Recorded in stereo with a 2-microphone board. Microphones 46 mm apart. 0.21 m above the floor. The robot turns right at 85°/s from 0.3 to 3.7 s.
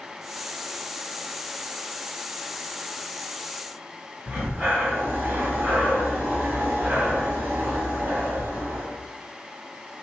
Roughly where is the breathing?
Right.